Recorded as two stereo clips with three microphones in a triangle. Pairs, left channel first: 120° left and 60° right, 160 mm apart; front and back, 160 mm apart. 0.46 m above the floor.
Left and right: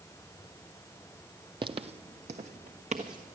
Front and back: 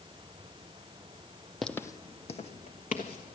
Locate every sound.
1.6 s footsteps: 90° right, 0.5 m; by 3.4 s 20° right, 1.7 m